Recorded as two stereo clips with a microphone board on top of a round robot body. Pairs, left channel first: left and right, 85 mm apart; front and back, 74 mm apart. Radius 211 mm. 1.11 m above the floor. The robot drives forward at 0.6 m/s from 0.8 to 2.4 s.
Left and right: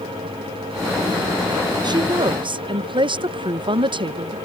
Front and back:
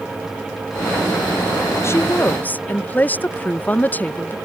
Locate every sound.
1.8 s a woman speaking: 55° right; by 4.4 s 70° right